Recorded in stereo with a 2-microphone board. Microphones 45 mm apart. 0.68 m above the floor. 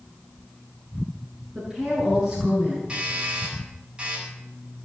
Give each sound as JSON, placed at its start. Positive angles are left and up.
{"t": 1.6, "sound": "a woman speaking", "side_deg": -10, "distance_m": 7.0}
{"t": 2.9, "sound": "a doorbell", "side_deg": -20, "distance_m": 8.0}